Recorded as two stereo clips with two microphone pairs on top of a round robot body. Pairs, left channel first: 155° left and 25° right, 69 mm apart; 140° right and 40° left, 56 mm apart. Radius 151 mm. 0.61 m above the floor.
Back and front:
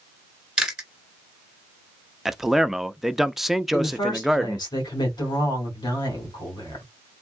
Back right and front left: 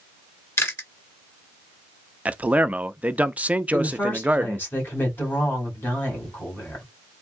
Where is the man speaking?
20° left, 0.7 m.